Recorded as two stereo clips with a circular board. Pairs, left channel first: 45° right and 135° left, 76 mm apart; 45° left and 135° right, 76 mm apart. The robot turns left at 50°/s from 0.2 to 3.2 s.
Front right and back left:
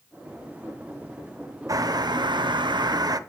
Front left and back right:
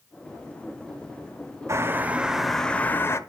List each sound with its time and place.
1.7 s a bird: 175° left, 0.7 m; by 3.2 s 100° left, 0.7 m